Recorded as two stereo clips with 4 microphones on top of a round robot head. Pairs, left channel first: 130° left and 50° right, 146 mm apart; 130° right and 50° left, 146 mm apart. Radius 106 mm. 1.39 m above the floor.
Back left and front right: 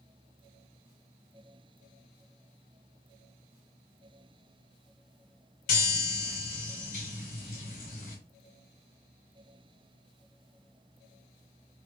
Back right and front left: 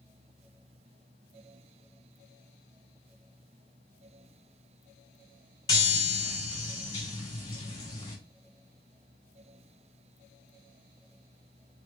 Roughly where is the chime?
Behind.